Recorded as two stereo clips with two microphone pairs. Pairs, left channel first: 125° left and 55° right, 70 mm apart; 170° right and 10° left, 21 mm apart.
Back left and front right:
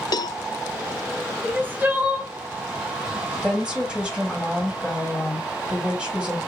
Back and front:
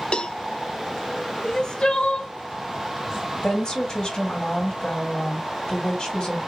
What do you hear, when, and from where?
0.1 s a cowbell: 150° left, 0.6 m
1.4 s crying: 120° right, 1.2 m
3.4 s a woman speaking: 130° right, 3 m